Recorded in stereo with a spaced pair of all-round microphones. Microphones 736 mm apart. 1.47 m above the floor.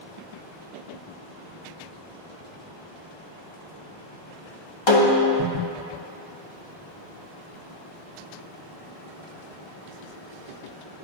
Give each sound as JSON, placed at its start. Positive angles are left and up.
{"t": 4.9, "sound": "a snare drum", "side_deg": 35, "distance_m": 0.8}